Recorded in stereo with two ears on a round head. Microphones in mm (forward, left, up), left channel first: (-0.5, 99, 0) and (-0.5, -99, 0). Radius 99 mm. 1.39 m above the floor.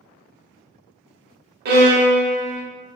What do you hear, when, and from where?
1.6 s a violin: 45° right (ahead or behind), 0.9 m